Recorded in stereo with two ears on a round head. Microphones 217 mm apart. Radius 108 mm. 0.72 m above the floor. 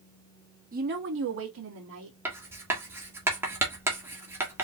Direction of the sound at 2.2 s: 10° right (ahead or behind).